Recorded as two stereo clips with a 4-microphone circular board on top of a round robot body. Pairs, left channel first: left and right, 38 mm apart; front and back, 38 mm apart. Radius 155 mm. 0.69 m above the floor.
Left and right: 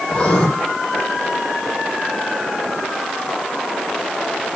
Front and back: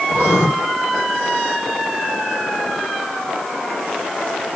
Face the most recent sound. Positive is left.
turn(degrees=20)